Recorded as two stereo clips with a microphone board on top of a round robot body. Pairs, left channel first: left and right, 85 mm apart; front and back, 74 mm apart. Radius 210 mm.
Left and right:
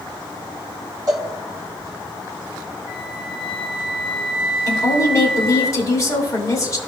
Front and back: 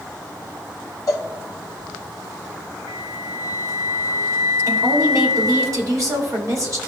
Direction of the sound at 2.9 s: 165° right.